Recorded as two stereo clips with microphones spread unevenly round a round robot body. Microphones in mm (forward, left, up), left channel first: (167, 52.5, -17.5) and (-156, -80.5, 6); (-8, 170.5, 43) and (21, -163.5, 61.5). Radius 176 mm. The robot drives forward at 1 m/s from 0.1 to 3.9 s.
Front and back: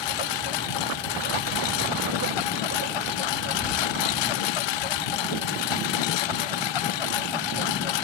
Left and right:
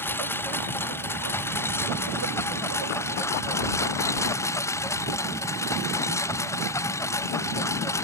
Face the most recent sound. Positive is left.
turn(degrees=15)